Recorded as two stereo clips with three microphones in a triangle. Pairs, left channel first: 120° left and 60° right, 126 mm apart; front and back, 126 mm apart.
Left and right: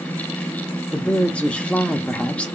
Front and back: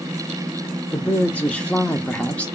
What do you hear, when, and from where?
0.9 s a man speaking: 60° left, 0.7 m